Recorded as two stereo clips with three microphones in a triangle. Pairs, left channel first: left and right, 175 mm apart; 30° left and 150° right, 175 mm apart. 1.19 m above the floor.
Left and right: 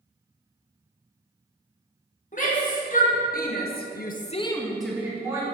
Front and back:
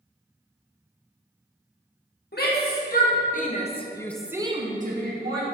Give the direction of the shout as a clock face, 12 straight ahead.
10 o'clock.